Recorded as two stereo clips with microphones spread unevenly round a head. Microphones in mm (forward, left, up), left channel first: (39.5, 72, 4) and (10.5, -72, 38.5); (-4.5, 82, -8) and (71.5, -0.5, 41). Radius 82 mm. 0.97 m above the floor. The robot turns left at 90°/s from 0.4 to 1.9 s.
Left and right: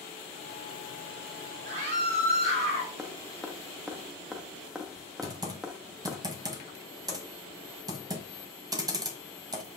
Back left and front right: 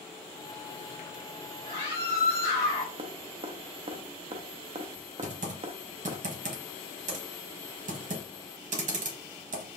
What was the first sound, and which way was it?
A scream, 115° right.